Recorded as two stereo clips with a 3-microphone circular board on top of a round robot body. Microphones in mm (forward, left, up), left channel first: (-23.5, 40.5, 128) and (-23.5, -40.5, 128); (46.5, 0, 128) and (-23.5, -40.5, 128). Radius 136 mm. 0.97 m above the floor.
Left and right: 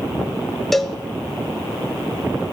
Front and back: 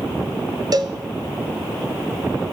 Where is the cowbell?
Straight behind, 1.0 m.